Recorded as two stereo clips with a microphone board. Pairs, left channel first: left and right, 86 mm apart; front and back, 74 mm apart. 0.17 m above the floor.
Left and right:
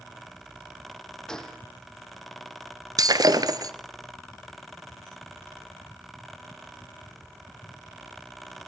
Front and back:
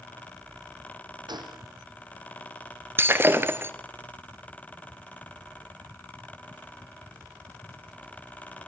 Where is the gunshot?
175° left, 3 m.